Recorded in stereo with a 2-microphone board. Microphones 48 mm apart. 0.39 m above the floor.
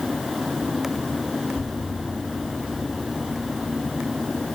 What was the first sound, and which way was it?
An explosion, 20° left (ahead or behind).